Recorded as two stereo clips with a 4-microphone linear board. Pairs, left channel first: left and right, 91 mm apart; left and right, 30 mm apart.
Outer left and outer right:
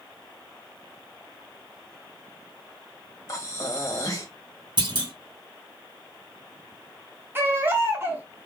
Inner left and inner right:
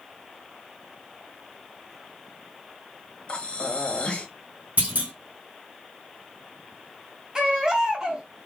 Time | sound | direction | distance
3.3 | breathing | 40° left (ahead or behind) | 1.4 m
4.8 | a clunk | 65° right (ahead or behind) | 2.5 m
7.3 | a baby crying | 25° right (ahead or behind) | 1.4 m